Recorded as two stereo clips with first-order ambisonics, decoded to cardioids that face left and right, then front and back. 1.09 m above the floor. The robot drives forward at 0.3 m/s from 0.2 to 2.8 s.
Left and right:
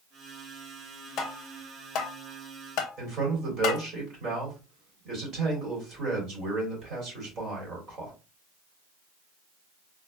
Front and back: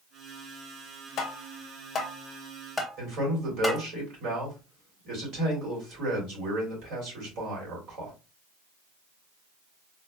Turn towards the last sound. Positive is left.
turn(degrees=-145)